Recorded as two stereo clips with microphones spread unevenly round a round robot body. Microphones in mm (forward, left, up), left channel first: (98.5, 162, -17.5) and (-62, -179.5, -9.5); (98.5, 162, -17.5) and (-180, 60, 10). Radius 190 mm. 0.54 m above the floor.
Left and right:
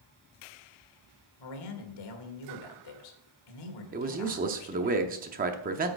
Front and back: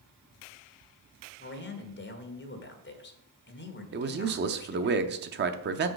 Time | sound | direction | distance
1.4 | a man speaking | 65° left | 1.7 m
3.9 | a man speaking | 160° right | 0.7 m